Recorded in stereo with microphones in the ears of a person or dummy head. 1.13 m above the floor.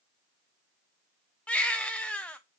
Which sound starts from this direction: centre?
A baby crying, at 1.5 s.